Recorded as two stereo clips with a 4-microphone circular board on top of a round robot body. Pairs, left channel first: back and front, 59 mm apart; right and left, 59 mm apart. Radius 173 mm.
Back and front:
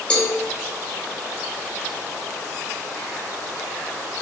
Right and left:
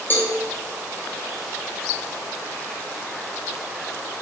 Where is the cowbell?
115° right, 0.7 m.